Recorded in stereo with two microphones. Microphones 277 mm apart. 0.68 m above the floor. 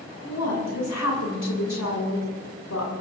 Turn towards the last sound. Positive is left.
turn(degrees=75)  # may be behind; listen again after turning